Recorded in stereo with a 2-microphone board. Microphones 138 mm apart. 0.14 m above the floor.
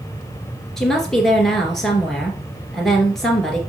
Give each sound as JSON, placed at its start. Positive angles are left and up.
{"t": 0.8, "sound": "a woman speaking", "side_deg": 0, "distance_m": 2.0}